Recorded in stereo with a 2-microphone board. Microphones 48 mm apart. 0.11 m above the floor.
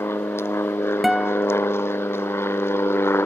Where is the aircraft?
65° left (ahead or behind).